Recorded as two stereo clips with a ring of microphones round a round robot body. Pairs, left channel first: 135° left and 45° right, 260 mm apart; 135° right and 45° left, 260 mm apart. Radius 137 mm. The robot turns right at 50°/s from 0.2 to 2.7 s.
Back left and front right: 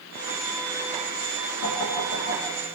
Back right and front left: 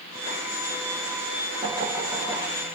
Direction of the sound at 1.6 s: 110° left.